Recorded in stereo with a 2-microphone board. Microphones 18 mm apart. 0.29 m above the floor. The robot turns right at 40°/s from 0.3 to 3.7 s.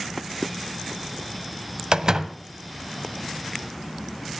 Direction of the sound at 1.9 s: 45° right (ahead or behind).